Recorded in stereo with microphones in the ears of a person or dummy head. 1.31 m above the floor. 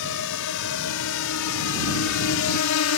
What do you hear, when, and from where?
0.0 s a drone: 70° left (ahead or behind); by 3.0 s 80° left